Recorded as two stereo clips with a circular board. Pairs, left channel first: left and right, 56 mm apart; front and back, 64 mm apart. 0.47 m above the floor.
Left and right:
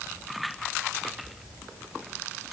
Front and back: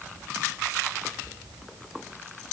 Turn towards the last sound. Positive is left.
No sound to turn to.